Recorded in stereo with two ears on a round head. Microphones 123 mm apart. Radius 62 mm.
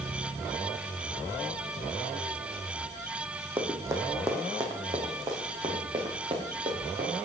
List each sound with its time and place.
3.6 s running footsteps: 15° right (ahead or behind), 2.5 m; by 7.2 s 40° right (ahead or behind), 5.5 m